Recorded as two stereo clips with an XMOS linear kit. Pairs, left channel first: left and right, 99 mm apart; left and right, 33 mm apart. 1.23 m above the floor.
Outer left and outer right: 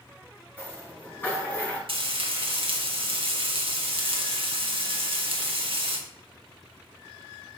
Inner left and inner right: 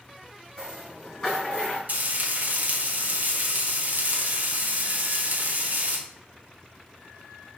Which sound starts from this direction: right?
Frying, at 1.9 s.